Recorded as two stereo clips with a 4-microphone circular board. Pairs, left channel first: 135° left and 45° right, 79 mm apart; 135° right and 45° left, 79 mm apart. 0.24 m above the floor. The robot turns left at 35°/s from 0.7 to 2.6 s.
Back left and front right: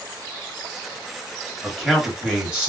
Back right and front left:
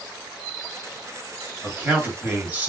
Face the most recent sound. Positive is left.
turn(degrees=20)